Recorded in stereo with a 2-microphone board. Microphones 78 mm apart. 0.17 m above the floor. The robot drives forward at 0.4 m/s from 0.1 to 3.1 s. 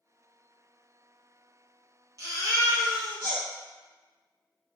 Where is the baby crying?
40° right (ahead or behind), 1.8 m; by 3.4 s 35° right (ahead or behind), 2 m.